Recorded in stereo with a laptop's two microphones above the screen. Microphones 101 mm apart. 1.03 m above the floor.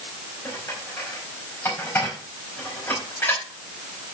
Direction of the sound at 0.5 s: 25° left (ahead or behind).